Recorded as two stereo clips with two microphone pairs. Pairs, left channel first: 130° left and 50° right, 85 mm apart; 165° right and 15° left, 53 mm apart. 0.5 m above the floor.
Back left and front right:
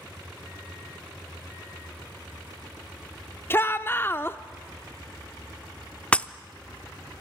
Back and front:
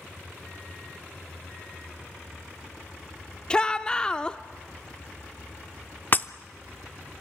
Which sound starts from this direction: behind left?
A shout, at 3.5 s.